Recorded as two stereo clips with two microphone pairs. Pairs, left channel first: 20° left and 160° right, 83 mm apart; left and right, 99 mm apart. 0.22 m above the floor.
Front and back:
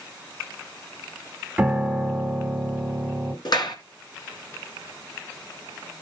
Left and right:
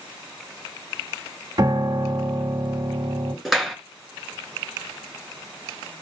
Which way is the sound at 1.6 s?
85° right.